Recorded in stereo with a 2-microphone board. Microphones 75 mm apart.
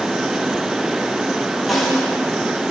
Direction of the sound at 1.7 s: Centre (ahead or behind).